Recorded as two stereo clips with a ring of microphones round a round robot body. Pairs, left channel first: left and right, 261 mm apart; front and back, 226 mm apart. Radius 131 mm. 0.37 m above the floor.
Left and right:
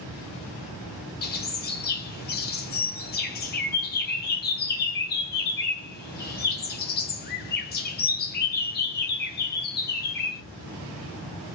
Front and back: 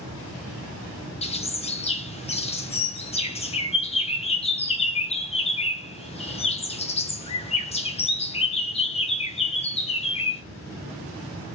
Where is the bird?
55° left, 0.8 m.